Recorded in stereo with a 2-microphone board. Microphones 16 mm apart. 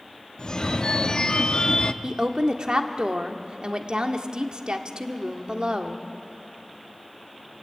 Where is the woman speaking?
55° right (ahead or behind), 1.5 m.